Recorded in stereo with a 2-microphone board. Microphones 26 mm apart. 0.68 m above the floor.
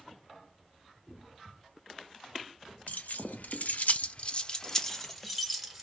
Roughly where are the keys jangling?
Left.